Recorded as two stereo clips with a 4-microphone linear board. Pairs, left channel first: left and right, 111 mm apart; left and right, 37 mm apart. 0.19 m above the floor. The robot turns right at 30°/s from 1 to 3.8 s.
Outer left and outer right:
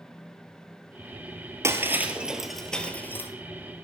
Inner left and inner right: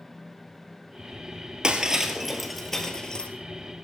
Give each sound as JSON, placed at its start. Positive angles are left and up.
{"t": 1.6, "sound": "breaking glass", "side_deg": -25, "distance_m": 1.7}